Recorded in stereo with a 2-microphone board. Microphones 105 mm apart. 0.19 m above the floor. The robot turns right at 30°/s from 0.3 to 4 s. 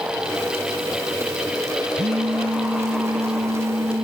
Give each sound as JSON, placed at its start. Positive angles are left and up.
{"t": 2.0, "sound": "a phone buzzing", "azimuth_deg": -110}